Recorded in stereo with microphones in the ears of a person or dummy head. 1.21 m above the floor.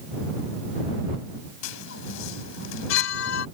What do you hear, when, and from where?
1.6 s a chime: 75° left (ahead or behind)